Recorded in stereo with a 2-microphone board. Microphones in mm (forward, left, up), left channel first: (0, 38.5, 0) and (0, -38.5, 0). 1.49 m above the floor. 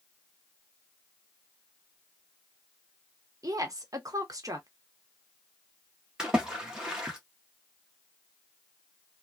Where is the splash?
10° right (ahead or behind), 1.2 m.